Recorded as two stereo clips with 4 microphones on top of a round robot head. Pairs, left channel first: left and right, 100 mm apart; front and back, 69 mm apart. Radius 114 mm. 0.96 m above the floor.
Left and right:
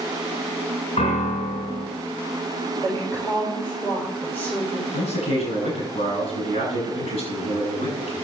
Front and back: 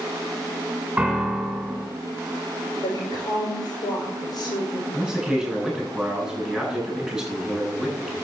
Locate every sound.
1.0 s a piano: 100° left, 5.5 m
2.8 s a woman speaking: 25° left, 5.5 m
4.9 s a man speaking: 95° left, 8.5 m